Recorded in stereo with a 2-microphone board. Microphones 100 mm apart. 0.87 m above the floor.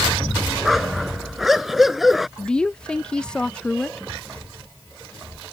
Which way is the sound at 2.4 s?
10° left (ahead or behind).